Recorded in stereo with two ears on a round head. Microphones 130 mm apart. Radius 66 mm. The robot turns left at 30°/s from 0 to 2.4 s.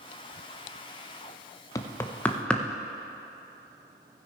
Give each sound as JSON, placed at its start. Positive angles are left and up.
{"t": 1.8, "sound": "knocking", "side_deg": 20, "distance_m": 0.5}